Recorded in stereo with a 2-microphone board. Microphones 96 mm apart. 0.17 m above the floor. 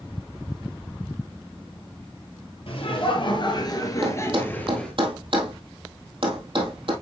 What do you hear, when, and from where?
2.7 s laughter: 65° left (ahead or behind), 3 m; by 4.9 s 10° left (ahead or behind), 3 m
4.0 s a thud: 60° right (ahead or behind), 2 m